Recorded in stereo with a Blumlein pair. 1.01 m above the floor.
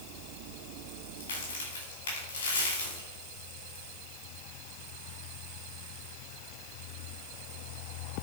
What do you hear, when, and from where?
1.2 s a crack: 65° left, 4.5 m